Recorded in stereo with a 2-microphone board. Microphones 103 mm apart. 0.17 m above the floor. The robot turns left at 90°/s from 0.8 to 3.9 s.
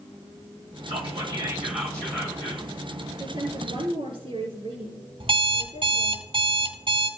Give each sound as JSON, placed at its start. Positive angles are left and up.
{"t": 0.9, "sound": "whispering", "azimuth_deg": -95, "distance_m": 5.0}
{"t": 3.2, "sound": "a woman speaking", "azimuth_deg": -35, "distance_m": 5.0}
{"t": 5.2, "sound": "an alarm clock", "side_deg": -60, "distance_m": 1.8}